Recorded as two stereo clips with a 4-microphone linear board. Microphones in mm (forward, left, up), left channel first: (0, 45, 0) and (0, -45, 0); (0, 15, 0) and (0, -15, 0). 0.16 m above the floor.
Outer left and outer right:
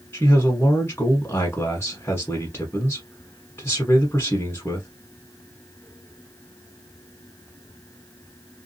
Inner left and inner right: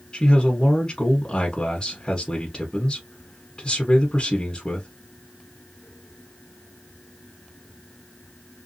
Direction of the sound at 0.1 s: 25° left (ahead or behind).